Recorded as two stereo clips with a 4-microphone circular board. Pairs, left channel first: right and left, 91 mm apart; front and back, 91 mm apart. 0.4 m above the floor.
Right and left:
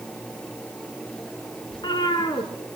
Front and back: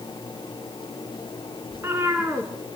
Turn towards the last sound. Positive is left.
turn(degrees=-120)